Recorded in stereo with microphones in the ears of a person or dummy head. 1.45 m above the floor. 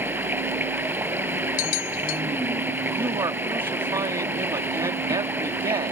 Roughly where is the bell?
Left.